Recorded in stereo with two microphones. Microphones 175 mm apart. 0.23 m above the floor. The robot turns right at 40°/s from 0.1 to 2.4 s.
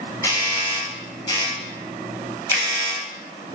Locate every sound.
0.2 s a doorbell: 20° left (ahead or behind), 1.4 m; by 3.0 s 15° left (ahead or behind), 1.4 m
2.5 s a finger snap: 10° right (ahead or behind), 0.7 m